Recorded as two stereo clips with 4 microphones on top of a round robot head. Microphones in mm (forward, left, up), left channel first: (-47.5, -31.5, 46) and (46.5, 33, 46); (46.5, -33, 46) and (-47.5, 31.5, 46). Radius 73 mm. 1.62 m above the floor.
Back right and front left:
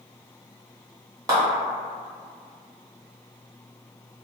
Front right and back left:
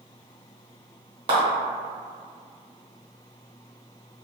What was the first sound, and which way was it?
A clap, 95° left.